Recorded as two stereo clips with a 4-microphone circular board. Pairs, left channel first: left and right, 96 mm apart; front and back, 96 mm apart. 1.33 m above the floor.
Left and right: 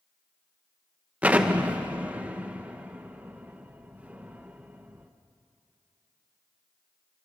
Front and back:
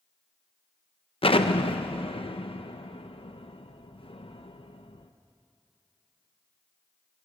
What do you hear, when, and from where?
1.2 s an explosion: 15° right, 0.9 m